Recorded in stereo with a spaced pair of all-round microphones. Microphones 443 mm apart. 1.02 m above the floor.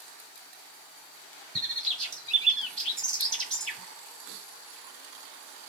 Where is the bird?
60° right (ahead or behind), 1.8 m.